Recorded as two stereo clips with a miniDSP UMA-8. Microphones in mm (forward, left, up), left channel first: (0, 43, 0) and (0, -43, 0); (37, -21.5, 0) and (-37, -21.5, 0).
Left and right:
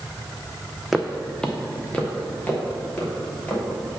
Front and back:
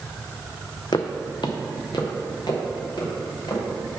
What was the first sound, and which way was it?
Footsteps, straight ahead.